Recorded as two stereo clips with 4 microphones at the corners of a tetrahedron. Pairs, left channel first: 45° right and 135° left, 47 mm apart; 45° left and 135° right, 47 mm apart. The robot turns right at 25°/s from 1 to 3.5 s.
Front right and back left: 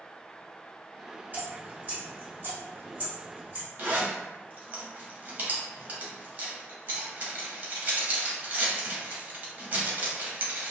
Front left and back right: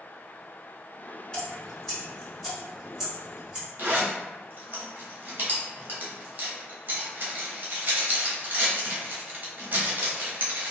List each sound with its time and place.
1.3 s dripping: 115° left, 1.9 m; by 3.7 s 170° left, 1.9 m
3.8 s a zipper: 175° right, 0.8 m